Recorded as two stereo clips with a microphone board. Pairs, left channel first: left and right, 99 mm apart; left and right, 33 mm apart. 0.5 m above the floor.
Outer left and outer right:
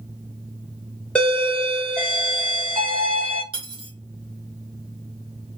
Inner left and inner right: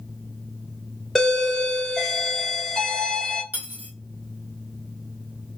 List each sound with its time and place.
1.1 s a doorbell: 10° left (ahead or behind), 1.2 m
3.5 s cutlery clinking: 65° right (ahead or behind), 1.0 m